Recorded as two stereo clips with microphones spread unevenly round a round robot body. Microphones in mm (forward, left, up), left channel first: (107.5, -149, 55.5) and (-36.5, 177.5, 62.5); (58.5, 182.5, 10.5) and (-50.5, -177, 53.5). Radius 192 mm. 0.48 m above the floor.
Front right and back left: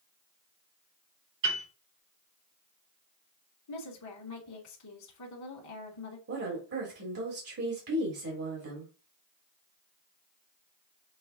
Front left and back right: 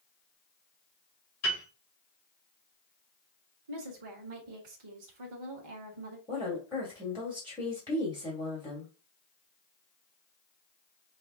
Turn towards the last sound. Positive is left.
turn(degrees=150)